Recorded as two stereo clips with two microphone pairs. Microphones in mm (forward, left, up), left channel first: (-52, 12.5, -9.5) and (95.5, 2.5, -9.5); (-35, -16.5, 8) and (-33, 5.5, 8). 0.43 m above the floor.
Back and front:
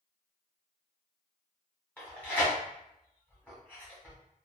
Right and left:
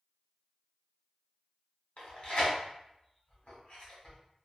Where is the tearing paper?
105° right, 1.3 m.